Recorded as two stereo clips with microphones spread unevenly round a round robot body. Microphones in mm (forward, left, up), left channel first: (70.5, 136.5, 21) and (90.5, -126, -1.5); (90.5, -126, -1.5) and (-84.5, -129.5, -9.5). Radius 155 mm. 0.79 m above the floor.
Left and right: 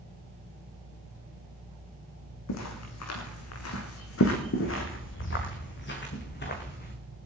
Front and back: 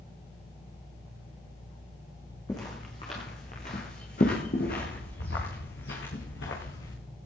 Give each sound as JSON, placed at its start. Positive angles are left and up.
{"t": 2.5, "sound": "footsteps", "azimuth_deg": 80, "distance_m": 3.0}